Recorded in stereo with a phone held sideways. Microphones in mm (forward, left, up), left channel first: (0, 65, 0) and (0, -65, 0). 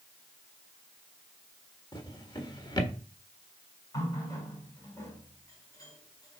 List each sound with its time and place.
1.9 s a drawer: 35° left (ahead or behind), 1.3 m
3.9 s a running tap: 30° left (ahead or behind), 3.5 m